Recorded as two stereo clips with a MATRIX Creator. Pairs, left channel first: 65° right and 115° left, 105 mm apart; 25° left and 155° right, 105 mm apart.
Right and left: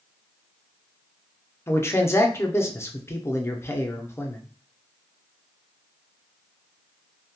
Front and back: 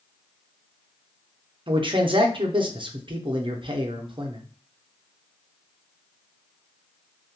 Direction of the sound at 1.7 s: 130° right.